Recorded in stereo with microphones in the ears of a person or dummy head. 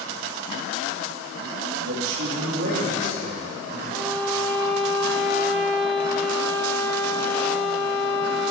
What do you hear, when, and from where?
1.8 s a man speaking: 75° right (ahead or behind), 1.9 m; by 3.8 s 55° right (ahead or behind), 4 m
3.9 s a violin: centre (ahead or behind), 1.6 m